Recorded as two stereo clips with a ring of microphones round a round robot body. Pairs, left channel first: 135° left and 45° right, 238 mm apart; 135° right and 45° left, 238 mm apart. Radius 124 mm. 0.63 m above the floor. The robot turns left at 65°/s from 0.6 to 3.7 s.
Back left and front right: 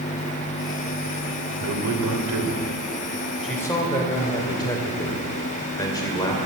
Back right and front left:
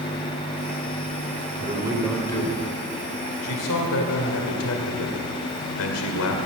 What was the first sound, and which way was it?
A man speaking, 15° right.